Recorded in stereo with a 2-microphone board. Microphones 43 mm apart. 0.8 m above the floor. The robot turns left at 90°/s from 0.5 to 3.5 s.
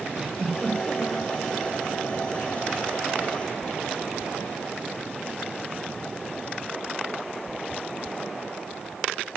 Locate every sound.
0.2 s a giggle: 165° right, 3 m; by 1.3 s 125° left, 3 m